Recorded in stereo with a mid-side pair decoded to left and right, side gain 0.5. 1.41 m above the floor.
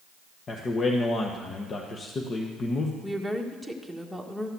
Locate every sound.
0.5 s a man speaking: 45° left, 1.2 m
3.0 s a woman speaking: 5° left, 1.6 m